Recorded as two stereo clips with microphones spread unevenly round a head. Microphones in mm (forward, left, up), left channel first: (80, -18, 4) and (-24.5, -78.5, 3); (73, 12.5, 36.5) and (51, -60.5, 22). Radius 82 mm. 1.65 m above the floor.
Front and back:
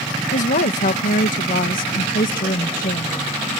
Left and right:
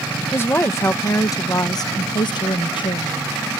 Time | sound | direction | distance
0.3 | a woman speaking | 15° left | ?